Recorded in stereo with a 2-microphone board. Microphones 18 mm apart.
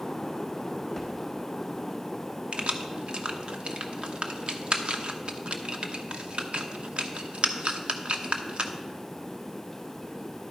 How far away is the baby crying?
No baby crying in this recording.